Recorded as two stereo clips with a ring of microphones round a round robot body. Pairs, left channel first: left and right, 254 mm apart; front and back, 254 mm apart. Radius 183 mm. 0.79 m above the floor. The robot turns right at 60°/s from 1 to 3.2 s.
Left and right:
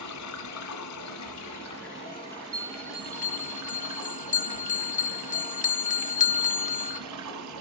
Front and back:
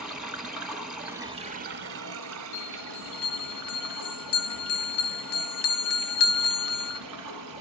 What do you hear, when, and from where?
0.0 s running water: 95° left, 1.5 m; by 7.6 s 135° right, 1.5 m
2.5 s a bell: 15° right, 0.7 m; by 7.0 s 25° left, 0.7 m